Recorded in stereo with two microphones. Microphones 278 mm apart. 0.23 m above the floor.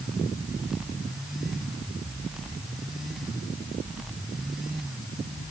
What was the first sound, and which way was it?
Only background noise.